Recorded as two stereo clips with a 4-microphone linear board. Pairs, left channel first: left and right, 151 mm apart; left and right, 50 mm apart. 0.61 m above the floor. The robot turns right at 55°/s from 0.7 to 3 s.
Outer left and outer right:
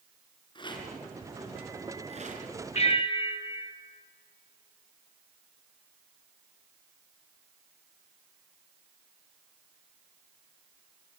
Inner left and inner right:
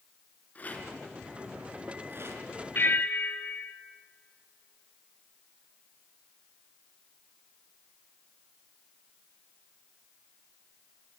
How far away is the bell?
About 1.8 m.